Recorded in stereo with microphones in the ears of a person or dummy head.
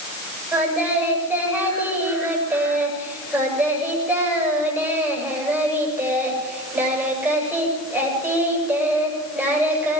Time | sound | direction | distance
0.5 | singing | 10° right (ahead or behind) | 7.5 m